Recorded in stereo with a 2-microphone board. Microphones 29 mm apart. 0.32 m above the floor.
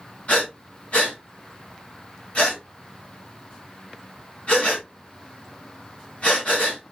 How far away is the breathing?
About 2.5 m.